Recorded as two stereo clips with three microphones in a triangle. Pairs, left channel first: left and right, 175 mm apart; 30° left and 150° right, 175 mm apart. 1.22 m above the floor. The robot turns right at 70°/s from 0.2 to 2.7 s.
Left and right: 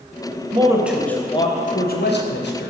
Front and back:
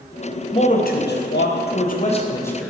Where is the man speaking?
35° right, 0.8 m; by 2.7 s 120° left, 0.8 m.